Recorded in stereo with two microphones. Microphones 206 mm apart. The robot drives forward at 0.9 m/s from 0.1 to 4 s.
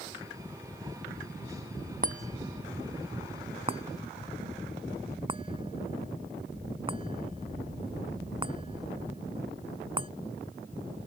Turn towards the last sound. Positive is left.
turn(degrees=-25)  # may be behind; listen again after turning